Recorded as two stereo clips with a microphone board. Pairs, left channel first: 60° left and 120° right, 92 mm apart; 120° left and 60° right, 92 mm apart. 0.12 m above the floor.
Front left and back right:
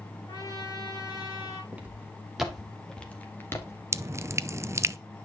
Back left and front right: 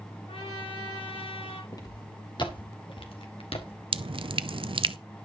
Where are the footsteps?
165° left, 3.5 m; by 3.8 s 115° left, 2.5 m.